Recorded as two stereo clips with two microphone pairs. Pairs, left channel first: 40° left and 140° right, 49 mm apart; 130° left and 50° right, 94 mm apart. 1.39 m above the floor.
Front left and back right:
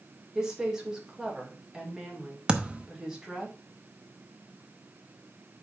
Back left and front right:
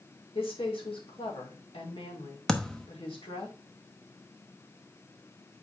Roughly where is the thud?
Behind right.